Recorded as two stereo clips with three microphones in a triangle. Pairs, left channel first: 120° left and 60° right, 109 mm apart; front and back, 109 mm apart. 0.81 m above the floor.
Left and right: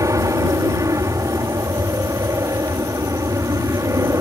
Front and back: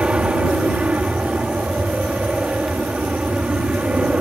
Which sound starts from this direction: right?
An aircraft, at 0.0 s.